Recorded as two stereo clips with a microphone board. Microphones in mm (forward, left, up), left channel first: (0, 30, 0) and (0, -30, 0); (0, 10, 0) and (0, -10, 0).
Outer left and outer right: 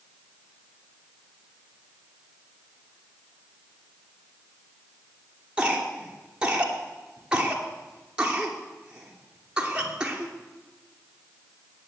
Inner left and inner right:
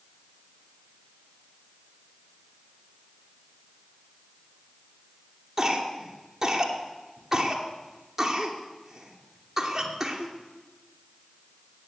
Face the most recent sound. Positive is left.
turn(degrees=-15)  # may be behind; listen again after turning